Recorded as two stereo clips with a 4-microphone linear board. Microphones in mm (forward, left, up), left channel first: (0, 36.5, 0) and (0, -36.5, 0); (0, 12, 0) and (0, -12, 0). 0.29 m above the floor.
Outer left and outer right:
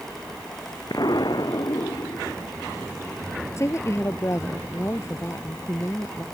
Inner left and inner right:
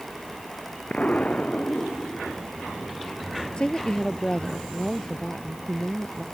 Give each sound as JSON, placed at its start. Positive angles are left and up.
{"t": 0.9, "sound": "an explosion", "side_deg": 65}
{"t": 3.6, "sound": "a woman speaking", "side_deg": 40}